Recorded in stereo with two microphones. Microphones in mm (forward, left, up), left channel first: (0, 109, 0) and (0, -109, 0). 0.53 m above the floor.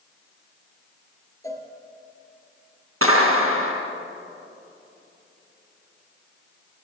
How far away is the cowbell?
About 3.5 m.